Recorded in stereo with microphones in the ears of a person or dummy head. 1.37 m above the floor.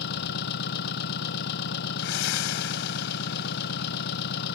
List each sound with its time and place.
0.0 s an engine running: 60° left (ahead or behind)
2.0 s breathing: 65° left (ahead or behind)